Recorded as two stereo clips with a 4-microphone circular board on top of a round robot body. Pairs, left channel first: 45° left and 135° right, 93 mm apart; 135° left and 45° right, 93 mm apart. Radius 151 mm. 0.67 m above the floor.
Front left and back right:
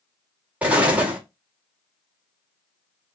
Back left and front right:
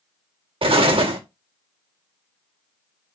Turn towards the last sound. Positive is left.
turn(degrees=-60)